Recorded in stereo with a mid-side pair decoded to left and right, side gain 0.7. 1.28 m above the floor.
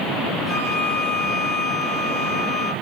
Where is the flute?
5° right, 5 m.